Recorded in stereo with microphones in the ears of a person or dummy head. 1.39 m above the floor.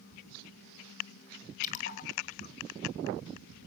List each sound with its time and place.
1.6 s a splash: 45° left (ahead or behind), 2 m